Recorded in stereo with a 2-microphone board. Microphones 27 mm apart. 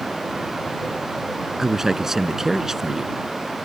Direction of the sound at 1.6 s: 15° right (ahead or behind).